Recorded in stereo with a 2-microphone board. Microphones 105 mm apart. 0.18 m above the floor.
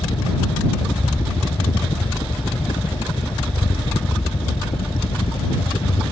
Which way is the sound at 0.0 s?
70° left (ahead or behind).